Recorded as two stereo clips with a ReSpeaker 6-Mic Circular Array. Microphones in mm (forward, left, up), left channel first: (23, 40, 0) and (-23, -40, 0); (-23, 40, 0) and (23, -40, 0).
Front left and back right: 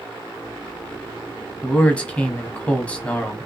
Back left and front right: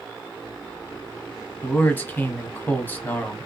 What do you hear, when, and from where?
1.6 s a man speaking: 110° left, 1.1 m